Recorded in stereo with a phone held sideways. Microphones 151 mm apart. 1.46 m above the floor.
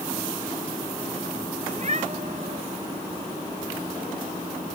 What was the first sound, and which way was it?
A cat meowing, 50° right (ahead or behind).